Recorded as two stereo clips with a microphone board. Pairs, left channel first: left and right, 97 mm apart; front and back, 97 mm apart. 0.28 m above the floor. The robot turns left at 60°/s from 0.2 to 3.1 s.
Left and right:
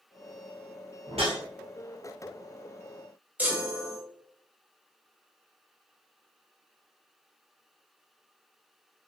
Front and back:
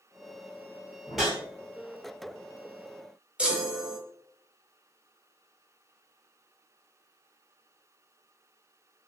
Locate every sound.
1.1 s a whoosh: 85° right, 0.9 m; by 1.4 s 105° right, 0.9 m
3.4 s a chime: 125° right, 0.7 m